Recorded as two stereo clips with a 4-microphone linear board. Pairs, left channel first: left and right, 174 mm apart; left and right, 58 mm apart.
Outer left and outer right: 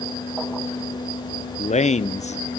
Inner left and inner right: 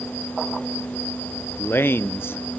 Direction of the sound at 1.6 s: 45° left (ahead or behind).